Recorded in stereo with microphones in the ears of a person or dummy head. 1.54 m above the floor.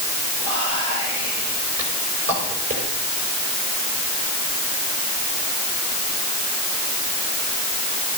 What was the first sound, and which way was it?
Whispering, 50° right (ahead or behind).